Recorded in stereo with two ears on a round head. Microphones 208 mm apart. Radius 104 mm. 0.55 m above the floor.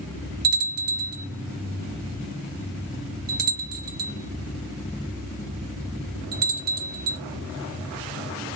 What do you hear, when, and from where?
0.4 s a bell: 40° right (ahead or behind), 1.4 m